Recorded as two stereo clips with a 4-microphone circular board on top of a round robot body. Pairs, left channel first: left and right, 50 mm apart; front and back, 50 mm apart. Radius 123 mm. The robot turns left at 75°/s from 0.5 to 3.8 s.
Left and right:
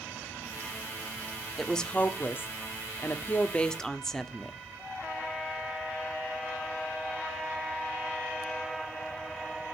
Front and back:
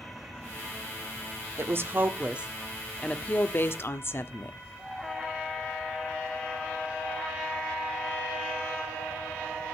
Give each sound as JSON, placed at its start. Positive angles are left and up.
{"t": 1.6, "sound": "a woman speaking", "azimuth_deg": 175, "distance_m": 1.3}